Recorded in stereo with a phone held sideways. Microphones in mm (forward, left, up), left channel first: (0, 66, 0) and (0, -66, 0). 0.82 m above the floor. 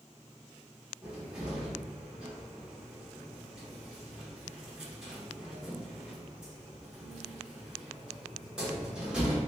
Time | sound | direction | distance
1.0 | a cupboard door | 5° right (ahead or behind) | 1.3 m